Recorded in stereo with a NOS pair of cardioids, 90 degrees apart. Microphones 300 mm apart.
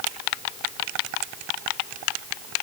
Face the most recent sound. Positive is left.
No sound to turn to.